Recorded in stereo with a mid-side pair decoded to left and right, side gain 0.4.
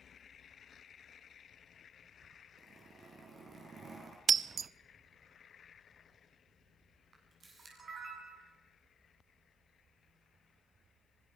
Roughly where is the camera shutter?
Ahead right.